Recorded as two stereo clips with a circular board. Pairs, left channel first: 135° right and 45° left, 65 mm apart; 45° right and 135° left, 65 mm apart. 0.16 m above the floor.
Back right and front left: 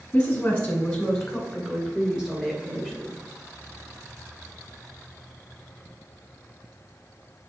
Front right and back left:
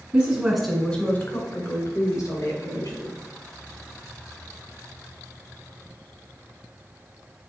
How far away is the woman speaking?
About 1.7 m.